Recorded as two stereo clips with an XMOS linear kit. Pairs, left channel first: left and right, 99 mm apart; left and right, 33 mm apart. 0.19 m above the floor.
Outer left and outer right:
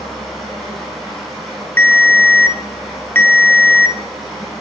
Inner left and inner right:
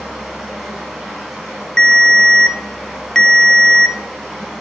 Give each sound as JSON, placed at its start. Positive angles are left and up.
{"t": 0.0, "sound": "running water", "side_deg": 0, "distance_m": 3.0}
{"t": 1.8, "sound": "a ringtone", "side_deg": 20, "distance_m": 0.7}